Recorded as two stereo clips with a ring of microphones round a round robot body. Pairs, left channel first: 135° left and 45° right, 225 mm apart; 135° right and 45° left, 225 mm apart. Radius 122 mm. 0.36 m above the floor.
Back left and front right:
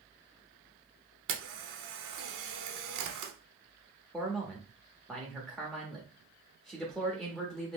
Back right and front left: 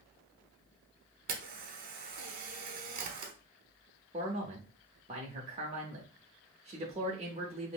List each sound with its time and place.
1.3 s a camera shutter: 10° right, 0.8 m
4.1 s a man speaking: 50° left, 0.8 m